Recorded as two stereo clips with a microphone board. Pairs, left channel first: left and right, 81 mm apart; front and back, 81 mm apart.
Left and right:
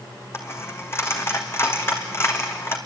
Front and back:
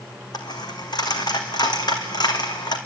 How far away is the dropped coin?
About 2 m.